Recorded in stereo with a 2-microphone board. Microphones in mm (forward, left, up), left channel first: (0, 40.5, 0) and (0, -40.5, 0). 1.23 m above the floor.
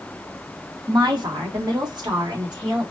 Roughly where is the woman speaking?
Right.